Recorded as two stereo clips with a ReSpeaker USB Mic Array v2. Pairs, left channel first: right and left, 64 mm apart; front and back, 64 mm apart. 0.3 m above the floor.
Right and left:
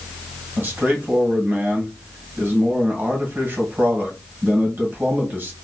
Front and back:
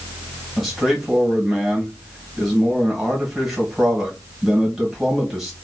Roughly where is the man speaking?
Left.